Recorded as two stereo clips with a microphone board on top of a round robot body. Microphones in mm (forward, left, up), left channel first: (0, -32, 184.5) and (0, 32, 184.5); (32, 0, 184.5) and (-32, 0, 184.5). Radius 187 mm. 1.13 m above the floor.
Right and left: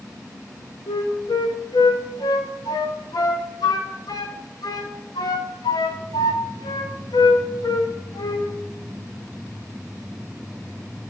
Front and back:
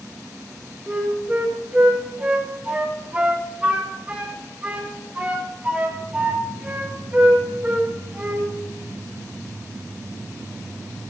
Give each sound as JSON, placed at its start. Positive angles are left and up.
{"t": 0.9, "sound": "a flute", "azimuth_deg": -110, "distance_m": 0.9}